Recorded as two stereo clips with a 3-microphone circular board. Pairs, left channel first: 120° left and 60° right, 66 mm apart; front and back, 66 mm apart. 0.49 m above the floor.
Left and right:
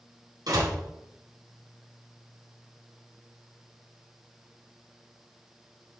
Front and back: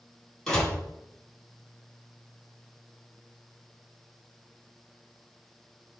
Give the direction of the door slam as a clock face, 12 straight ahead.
3 o'clock.